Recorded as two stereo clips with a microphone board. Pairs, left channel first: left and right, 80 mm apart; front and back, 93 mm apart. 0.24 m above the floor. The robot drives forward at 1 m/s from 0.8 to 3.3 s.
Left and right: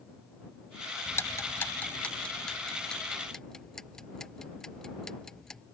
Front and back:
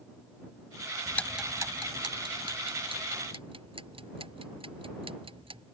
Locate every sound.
1.1 s ticking: 40° left; by 5.6 s 175° left